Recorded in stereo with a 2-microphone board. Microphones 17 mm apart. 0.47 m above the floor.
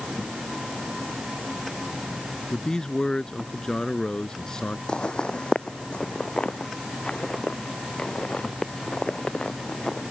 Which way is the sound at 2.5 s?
45° left (ahead or behind).